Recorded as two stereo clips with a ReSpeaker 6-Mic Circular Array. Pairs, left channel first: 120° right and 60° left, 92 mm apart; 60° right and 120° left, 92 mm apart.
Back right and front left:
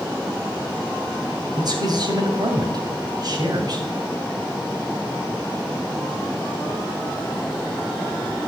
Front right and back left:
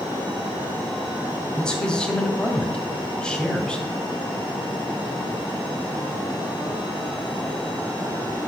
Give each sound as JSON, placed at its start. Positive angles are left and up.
{"t": 1.6, "sound": "a man speaking", "azimuth_deg": 20, "distance_m": 2.0}